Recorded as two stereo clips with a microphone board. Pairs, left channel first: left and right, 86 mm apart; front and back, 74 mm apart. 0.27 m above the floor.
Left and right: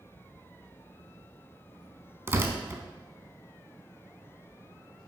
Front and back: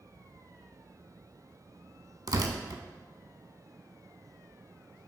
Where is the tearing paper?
150° right, 0.5 m.